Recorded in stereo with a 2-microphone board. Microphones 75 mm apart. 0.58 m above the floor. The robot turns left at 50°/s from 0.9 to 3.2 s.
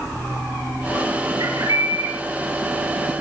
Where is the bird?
110° right, 5.5 m; by 2.1 s 150° right, 5.5 m.